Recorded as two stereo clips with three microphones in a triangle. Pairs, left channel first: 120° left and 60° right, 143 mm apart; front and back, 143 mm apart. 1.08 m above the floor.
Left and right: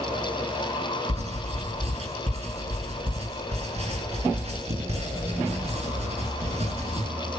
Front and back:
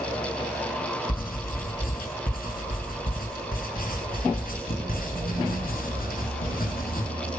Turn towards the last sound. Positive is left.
turn(degrees=-15)